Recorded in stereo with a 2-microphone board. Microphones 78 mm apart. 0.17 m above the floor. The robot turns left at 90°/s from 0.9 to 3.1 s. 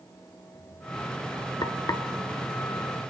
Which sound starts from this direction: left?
Frying, at 1.6 s.